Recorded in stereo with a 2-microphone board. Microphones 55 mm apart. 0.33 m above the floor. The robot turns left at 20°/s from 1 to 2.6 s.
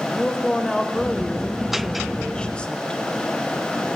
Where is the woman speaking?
10° left (ahead or behind), 0.9 m; by 3.0 s 20° left (ahead or behind), 0.9 m.